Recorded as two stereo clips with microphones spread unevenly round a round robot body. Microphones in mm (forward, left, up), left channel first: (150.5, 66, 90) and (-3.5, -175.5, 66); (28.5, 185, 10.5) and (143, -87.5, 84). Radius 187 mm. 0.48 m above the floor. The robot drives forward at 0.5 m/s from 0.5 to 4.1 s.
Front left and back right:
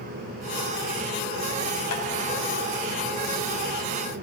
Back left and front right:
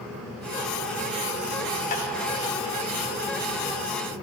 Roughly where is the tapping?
Left.